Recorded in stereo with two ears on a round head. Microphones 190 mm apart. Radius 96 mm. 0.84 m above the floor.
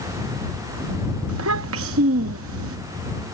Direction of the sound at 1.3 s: 65° right (ahead or behind).